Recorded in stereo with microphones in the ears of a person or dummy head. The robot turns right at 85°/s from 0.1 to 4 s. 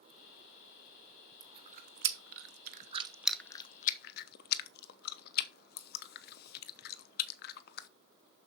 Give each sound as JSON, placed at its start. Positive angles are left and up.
{"t": 1.4, "sound": "chewing", "side_deg": -20, "distance_m": 0.8}